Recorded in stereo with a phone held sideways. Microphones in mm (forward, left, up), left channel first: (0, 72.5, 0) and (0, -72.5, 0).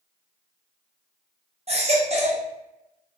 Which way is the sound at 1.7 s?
50° right (ahead or behind).